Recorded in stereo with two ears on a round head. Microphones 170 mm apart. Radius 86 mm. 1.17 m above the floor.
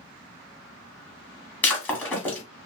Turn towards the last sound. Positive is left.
turn(degrees=10)  # may be behind; listen again after turning